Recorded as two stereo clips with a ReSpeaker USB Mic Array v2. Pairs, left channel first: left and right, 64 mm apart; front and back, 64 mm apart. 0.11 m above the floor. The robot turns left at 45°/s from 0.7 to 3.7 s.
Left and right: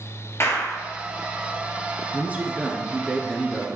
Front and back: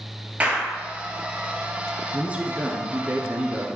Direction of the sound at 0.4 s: 120° left.